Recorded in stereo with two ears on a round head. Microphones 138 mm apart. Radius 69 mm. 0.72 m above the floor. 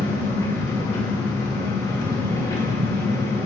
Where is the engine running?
25° left (ahead or behind), 1.9 m.